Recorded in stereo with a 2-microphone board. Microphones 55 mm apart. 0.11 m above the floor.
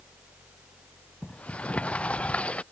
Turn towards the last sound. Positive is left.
turn(degrees=25)  # may be behind; listen again after turning